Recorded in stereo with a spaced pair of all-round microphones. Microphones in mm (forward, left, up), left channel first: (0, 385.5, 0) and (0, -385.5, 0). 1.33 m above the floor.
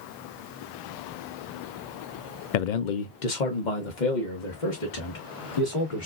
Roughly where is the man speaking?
Left.